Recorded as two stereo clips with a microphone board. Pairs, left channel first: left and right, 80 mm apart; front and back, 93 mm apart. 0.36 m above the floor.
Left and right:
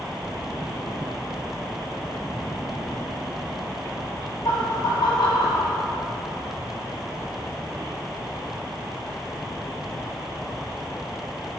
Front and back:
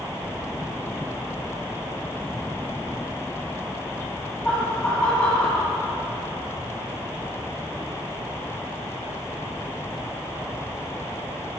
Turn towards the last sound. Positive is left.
turn(degrees=75)